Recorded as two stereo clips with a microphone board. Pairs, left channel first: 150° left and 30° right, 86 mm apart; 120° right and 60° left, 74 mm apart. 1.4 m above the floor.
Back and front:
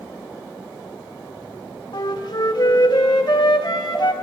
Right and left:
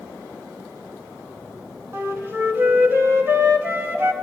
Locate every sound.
1.9 s a flute: 120° left, 1.9 m